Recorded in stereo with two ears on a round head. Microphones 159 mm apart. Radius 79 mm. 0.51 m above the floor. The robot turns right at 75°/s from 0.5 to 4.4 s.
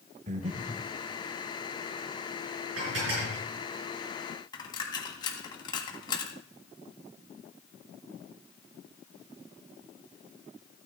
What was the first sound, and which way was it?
Breathing, 40° right (ahead or behind).